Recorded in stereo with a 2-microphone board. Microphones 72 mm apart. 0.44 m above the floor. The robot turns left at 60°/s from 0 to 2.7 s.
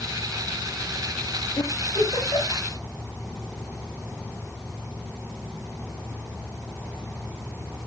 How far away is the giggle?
About 9.5 m.